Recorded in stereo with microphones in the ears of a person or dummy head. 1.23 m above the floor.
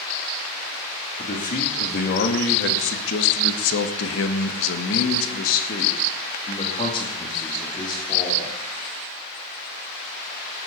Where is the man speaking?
45° left (ahead or behind), 2.5 m; by 8.5 s 20° left (ahead or behind), 3.5 m.